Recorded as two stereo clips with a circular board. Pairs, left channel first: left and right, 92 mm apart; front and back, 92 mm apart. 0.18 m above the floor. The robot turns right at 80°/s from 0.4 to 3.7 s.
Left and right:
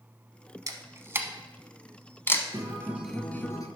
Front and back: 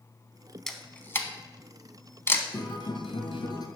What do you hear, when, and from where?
0.7 s a camera shutter: 85° right, 0.9 m; by 2.4 s 60° left, 0.9 m
2.5 s a guitar: 45° right, 1.3 m; by 3.7 s 45° left, 1.3 m